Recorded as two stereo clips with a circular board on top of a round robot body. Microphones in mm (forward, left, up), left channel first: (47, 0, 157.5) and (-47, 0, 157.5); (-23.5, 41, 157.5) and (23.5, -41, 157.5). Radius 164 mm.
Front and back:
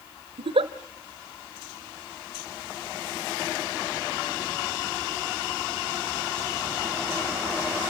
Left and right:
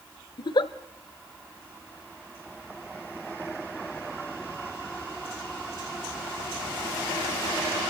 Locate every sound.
0.4 s a giggle: 160° left, 0.8 m